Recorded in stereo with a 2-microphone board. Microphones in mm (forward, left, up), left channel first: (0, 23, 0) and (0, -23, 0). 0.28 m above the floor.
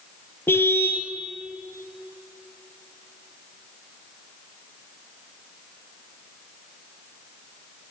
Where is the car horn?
55° left (ahead or behind), 3 m.